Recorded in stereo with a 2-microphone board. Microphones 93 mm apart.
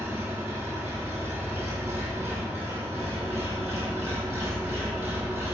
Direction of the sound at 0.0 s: 20° right (ahead or behind).